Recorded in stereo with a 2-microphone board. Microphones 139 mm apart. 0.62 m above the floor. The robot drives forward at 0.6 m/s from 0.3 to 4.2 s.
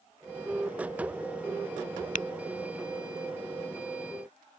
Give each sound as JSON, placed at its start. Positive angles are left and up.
{"t": 2.1, "sound": "tapping", "side_deg": 70}